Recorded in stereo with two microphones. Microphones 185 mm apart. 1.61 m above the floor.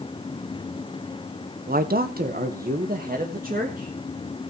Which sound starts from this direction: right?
A man speaking, at 1.7 s.